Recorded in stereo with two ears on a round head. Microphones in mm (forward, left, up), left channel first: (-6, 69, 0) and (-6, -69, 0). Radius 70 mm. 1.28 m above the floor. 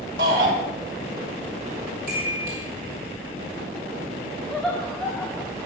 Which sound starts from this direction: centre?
Laughter, at 4.5 s.